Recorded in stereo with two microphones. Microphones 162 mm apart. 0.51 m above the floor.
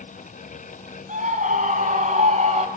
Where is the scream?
50° right (ahead or behind), 5 m; by 2.7 s 45° right (ahead or behind), 2.5 m.